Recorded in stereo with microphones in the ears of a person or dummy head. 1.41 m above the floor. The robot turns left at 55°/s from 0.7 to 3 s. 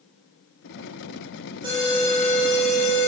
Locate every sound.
1.6 s an alarm: 160° right, 3.5 m; by 3.1 s 125° left, 3.5 m